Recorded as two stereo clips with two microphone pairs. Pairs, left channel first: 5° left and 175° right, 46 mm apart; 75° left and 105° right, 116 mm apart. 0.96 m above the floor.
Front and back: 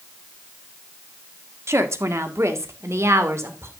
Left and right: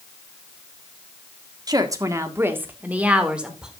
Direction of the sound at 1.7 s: 160° right.